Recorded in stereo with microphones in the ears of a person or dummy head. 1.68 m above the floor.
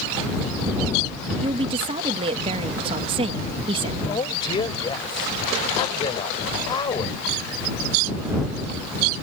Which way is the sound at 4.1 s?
30° left (ahead or behind).